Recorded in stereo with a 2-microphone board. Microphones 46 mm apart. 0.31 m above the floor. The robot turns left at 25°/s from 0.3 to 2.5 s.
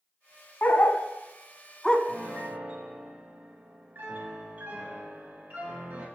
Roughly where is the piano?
Right.